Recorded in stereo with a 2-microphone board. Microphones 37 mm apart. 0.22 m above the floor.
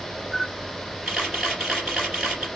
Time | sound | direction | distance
0.3 | a camera shutter | 5° right (ahead or behind) | 2.5 m